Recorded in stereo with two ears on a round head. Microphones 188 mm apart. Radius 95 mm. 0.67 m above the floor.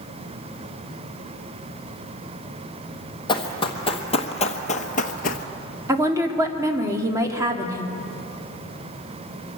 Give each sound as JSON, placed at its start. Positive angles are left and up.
{"t": 3.3, "sound": "running footsteps", "side_deg": 25, "distance_m": 1.8}
{"t": 5.9, "sound": "a woman speaking", "side_deg": -15, "distance_m": 1.7}